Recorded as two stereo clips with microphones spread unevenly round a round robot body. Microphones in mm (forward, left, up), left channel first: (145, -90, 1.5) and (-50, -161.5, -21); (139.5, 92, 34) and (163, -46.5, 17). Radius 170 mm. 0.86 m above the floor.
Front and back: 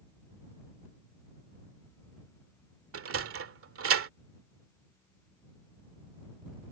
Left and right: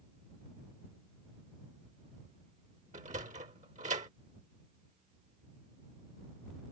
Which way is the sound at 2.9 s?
150° right.